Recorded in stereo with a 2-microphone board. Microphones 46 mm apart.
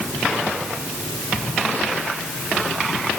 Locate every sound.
Only background noise.